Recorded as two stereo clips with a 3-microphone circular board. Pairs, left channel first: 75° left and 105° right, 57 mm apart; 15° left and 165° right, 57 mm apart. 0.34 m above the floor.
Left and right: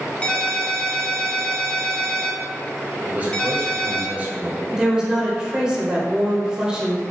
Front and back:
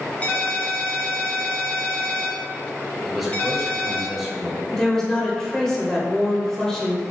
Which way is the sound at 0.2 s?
30° left.